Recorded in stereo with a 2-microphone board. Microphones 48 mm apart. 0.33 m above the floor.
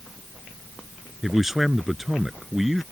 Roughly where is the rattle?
I don't hear a rattle.